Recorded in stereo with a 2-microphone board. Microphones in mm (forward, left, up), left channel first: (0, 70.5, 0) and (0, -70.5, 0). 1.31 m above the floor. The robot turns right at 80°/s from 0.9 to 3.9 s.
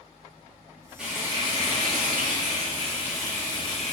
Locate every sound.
1.0 s frying: 175° right, 2.5 m; by 3.9 s 55° left, 2.5 m